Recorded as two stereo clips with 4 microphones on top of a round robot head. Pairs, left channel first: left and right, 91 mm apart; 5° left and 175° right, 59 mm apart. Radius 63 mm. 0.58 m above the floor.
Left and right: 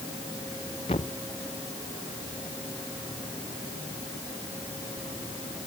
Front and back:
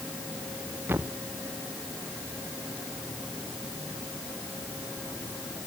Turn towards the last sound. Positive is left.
turn(degrees=130)